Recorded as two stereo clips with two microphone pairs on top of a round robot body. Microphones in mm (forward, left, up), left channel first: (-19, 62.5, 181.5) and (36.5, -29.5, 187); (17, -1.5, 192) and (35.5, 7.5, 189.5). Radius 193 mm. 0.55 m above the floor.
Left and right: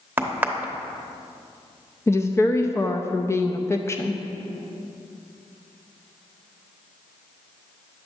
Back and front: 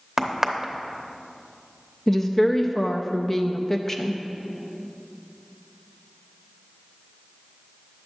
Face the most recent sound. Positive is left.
turn(degrees=135)